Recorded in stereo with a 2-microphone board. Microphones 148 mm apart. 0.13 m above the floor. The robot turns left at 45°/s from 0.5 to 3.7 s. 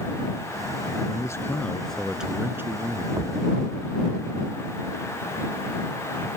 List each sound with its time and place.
1.1 s a man speaking: 40° left; by 3.1 s 45° right
3.2 s a thud: 30° right (ahead or behind); by 3.4 s 20° right (ahead or behind)